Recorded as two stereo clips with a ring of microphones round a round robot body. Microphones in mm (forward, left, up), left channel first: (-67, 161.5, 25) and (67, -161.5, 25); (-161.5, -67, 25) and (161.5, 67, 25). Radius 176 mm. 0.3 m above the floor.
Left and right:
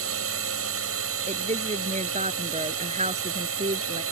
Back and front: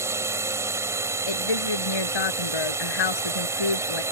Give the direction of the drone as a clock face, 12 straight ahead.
2 o'clock.